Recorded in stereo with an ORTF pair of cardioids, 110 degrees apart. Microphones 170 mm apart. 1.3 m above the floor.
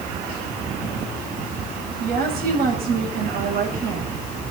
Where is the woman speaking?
60° right, 8.5 m.